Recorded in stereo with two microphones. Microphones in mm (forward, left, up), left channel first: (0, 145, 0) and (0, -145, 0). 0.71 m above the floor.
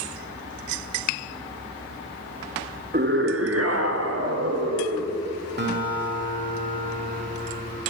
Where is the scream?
30° right (ahead or behind), 0.7 m; by 5.2 s 60° right (ahead or behind), 3 m.